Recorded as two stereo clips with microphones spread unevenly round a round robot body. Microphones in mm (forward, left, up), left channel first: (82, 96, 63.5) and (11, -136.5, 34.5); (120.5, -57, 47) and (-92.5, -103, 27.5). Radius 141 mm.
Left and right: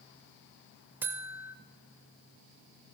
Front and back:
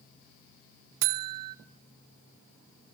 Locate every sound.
1.0 s a buzzer: 170° left, 0.6 m